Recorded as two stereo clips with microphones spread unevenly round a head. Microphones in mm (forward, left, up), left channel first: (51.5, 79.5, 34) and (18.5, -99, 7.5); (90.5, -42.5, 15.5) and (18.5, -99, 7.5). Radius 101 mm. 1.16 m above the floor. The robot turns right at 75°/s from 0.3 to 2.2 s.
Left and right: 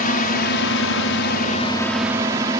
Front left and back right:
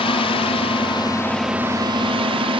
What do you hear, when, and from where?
0.0 s a drone: 40° left; by 2.6 s 170° right